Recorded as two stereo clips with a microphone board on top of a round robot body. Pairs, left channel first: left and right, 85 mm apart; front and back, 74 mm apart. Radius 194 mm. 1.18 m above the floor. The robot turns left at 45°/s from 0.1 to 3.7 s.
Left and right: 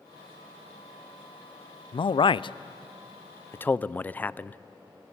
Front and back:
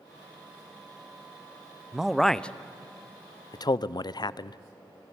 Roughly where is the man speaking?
Left.